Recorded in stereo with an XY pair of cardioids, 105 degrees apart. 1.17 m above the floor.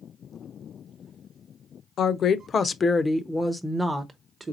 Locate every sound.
2.0 s a woman speaking: 60° left, 0.8 m; by 4.5 s 25° right, 1.1 m